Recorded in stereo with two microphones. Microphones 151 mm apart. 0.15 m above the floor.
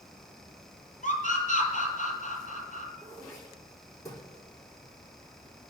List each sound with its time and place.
1.0 s a scream: 55° left (ahead or behind), 3.5 m
3.0 s throat clearing: 20° left (ahead or behind), 5 m